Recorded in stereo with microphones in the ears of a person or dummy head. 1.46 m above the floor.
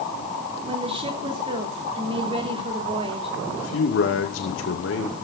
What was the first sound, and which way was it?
A woman speaking, 35° right (ahead or behind).